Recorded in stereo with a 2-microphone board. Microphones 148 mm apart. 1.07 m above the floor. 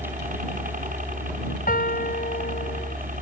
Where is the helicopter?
65° right (ahead or behind).